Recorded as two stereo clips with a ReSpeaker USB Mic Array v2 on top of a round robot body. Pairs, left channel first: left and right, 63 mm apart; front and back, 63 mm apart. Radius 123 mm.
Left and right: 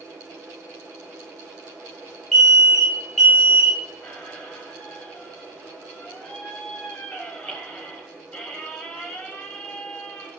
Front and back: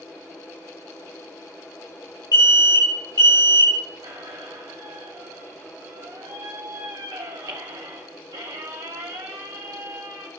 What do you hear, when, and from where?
2.3 s an alarm: 10° left, 5 m
4.0 s a squeak: 160° left, 0.8 m